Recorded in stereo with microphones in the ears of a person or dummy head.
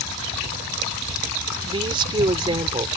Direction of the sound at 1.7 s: 25° right (ahead or behind).